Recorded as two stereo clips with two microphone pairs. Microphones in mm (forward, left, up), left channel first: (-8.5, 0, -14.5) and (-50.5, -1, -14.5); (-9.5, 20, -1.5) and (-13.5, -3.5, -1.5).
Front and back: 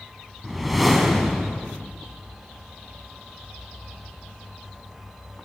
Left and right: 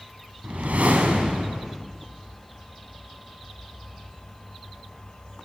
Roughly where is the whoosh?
Right.